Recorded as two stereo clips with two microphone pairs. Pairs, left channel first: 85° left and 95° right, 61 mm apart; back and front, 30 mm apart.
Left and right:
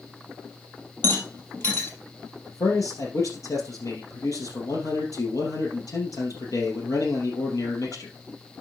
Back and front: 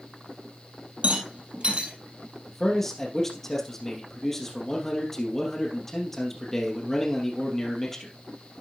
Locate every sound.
1.0 s a rattle: 35° left, 3 m
2.5 s a man speaking: 95° left, 3 m